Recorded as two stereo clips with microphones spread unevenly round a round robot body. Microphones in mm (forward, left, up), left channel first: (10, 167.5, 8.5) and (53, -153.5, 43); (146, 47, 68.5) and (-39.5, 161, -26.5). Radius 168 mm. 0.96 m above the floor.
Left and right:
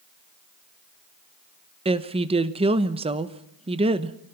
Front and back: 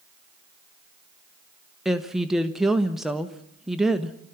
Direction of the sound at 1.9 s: 155° right.